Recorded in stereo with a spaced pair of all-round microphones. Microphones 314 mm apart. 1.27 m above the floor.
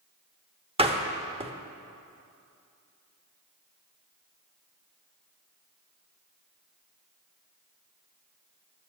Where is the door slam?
20° right (ahead or behind), 1.0 m.